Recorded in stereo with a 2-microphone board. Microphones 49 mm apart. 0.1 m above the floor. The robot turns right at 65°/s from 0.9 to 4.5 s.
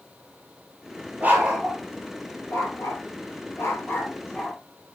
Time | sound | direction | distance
1.2 | a dog barking | 35° right (ahead or behind) | 9.5 m